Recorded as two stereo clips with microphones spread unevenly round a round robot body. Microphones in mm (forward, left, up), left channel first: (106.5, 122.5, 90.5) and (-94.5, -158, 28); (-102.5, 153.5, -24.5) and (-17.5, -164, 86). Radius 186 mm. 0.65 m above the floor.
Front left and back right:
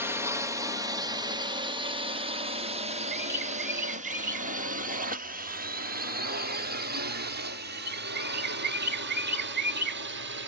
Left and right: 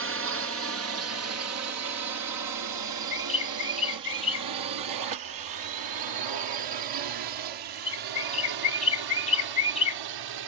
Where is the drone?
100° right; by 10.5 s 85° right.